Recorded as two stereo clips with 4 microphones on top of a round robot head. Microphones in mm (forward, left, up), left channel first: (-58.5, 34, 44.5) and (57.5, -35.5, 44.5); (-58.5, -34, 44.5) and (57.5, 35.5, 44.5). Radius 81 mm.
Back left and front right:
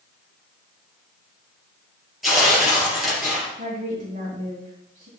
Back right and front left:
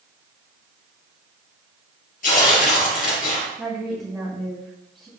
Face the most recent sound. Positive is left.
turn(degrees=-55)